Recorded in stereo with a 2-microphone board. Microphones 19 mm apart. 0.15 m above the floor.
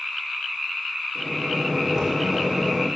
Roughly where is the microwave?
Right.